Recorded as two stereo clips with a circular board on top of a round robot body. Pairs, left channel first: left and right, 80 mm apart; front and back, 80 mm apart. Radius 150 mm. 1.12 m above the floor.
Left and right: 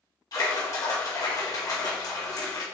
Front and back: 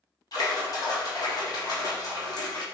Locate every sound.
0.3 s a splash: 45° left, 1.7 m